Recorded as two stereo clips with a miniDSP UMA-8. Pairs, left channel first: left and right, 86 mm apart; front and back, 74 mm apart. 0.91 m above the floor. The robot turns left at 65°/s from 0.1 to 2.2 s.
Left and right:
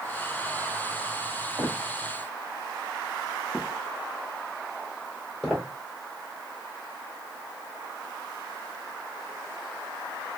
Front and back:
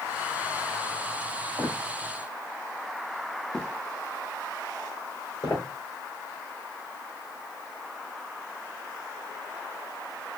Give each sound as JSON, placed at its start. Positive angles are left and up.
{"t": 1.6, "sound": "footsteps", "azimuth_deg": -135, "distance_m": 1.3}